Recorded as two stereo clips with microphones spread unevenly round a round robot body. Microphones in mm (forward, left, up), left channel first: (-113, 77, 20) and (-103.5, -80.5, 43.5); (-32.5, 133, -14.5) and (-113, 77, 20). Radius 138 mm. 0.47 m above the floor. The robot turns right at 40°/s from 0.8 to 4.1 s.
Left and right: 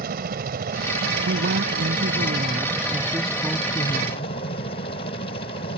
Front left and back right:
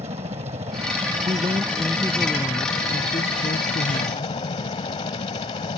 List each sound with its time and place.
0.0 s a helicopter: 90° right; by 5.8 s 40° left
1.2 s a woman speaking: 90° right; by 4.3 s 20° left